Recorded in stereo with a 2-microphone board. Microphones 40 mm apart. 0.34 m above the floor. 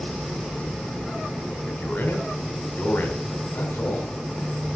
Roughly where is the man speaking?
Left.